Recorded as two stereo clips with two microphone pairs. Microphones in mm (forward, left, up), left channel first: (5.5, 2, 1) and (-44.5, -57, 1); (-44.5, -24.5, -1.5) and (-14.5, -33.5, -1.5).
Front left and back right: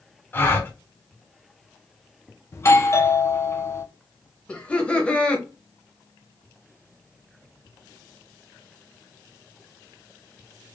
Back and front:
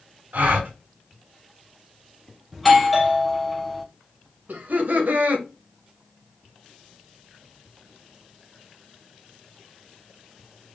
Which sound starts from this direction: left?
A doorbell, at 2.5 s.